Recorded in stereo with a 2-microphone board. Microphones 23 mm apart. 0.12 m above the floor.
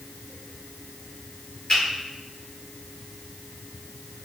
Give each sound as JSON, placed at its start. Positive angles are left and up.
{"t": 1.7, "sound": "a finger snap", "side_deg": 40, "distance_m": 1.8}